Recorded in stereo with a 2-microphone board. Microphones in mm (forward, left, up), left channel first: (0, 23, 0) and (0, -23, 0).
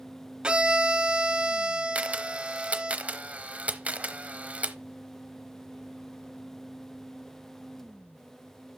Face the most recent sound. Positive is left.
turn(degrees=-30)  # may be behind; listen again after turning